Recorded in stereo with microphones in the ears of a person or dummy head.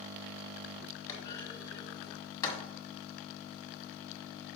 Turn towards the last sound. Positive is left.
turn(degrees=20)  # may be behind; listen again after turning